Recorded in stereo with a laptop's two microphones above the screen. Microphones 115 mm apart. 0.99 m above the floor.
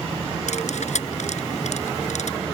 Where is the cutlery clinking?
80° left.